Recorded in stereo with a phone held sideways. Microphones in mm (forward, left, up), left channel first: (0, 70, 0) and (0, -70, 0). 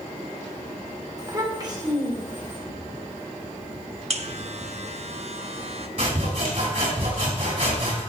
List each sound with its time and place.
1.2 s a child speaking: 25° right (ahead or behind), 2.5 m; by 2.6 s 35° right (ahead or behind), 3 m
4.1 s a buzzer: 50° right (ahead or behind), 0.8 m
6.0 s sawing: 45° right (ahead or behind), 5 m